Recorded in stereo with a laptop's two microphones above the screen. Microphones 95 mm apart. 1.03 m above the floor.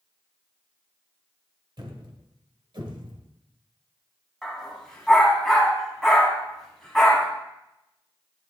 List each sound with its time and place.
1.8 s a thud: 55° right (ahead or behind), 1.6 m
4.4 s a dog barking: 5° left (ahead or behind), 2.5 m